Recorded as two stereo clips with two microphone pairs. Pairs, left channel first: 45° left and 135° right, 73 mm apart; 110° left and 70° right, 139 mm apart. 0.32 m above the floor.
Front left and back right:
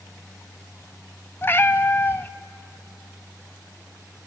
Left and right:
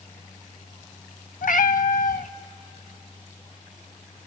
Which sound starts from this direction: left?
A cat meowing, at 1.4 s.